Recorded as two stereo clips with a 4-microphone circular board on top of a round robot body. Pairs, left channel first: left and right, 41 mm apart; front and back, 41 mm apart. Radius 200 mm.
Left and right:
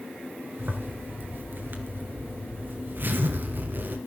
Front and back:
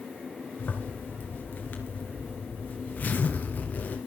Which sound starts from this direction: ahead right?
A zipper, at 0.6 s.